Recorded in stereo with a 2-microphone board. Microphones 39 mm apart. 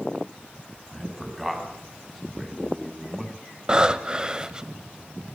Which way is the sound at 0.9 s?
5° right (ahead or behind).